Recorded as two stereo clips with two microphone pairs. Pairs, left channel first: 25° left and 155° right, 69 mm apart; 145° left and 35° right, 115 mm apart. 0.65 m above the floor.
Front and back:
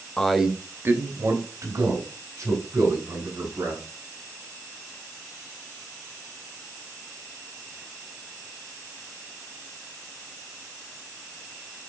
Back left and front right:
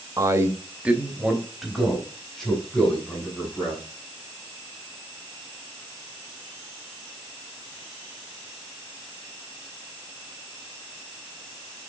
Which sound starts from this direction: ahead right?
A man speaking, at 0.2 s.